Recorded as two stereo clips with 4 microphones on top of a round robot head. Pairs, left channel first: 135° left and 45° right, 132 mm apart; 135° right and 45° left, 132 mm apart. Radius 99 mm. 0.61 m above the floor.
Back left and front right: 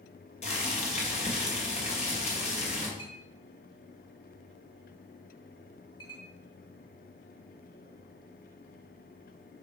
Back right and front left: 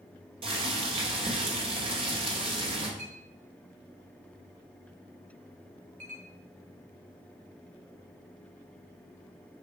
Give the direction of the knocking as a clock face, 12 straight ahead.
I don't hear knocking.